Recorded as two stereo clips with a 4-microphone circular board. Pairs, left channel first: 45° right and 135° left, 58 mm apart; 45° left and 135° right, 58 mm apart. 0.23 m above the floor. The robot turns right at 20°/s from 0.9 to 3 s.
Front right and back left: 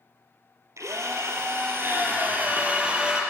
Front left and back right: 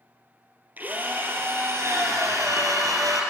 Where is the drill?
165° left, 4 m; by 3.2 s 155° right, 4 m.